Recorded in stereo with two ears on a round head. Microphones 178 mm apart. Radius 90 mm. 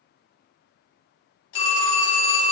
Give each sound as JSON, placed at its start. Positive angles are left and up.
{"t": 1.5, "sound": "a phone ringing", "side_deg": 75, "distance_m": 1.5}